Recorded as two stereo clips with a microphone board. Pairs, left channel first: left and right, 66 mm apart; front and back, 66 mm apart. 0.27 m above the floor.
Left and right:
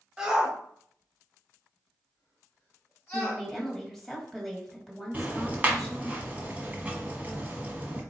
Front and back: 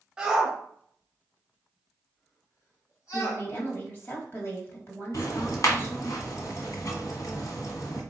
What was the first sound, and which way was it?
A shout, 135° right.